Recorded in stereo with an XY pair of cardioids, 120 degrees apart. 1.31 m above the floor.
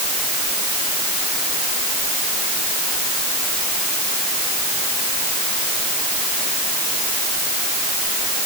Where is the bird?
No bird in this recording.